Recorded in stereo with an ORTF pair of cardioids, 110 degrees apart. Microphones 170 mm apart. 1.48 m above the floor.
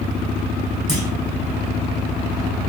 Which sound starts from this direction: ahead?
A clunk, at 0.9 s.